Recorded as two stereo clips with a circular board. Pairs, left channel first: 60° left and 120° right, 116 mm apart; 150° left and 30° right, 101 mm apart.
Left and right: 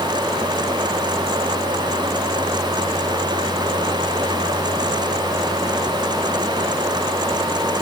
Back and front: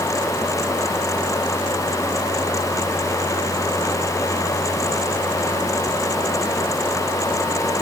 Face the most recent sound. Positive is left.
No sound to turn to.